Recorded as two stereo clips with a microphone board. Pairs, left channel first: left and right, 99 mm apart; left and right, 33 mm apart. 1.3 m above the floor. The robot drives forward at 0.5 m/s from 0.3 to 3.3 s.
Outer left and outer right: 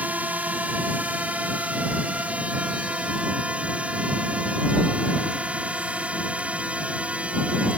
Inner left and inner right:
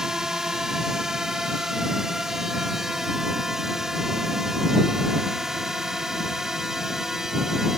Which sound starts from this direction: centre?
A drone, at 0.0 s.